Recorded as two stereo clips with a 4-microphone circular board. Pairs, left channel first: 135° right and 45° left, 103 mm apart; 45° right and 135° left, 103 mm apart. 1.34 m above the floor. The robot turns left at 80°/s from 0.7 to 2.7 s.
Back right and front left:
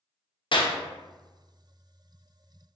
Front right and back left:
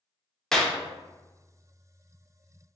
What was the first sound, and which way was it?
A clap, 130° right.